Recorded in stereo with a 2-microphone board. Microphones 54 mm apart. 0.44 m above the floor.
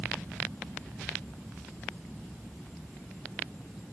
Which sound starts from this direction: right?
An aircraft, at 0.0 s.